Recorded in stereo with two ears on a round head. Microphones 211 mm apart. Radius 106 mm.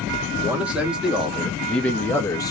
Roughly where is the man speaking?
Centre.